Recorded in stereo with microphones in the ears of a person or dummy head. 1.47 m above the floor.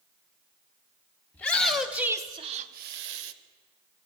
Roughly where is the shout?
Centre.